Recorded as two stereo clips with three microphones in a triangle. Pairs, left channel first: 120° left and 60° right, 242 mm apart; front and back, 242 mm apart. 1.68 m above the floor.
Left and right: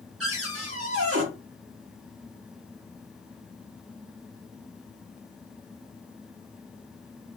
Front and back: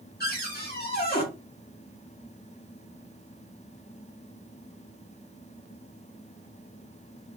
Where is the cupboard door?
50° right, 1.1 m.